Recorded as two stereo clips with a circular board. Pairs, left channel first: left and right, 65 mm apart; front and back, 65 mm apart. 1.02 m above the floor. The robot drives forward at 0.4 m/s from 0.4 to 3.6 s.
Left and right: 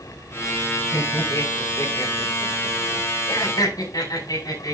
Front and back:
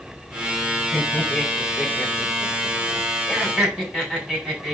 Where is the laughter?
85° left, 4 m; by 4.7 s 100° left, 4 m.